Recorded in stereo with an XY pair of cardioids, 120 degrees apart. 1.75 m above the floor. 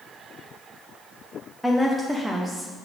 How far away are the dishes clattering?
No dishes clattering in this recording.